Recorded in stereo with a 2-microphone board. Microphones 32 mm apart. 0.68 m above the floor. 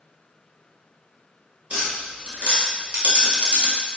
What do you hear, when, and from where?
1.7 s tapping: 35° right (ahead or behind), 1.3 m